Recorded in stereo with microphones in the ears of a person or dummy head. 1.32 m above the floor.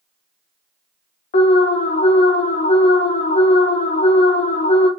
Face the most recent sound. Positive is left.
turn(degrees=35)  # may be behind; listen again after turning